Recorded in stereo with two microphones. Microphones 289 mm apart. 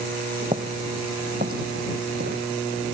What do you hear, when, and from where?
0.4 s footsteps: 25° right (ahead or behind); by 2.9 s 40° right (ahead or behind)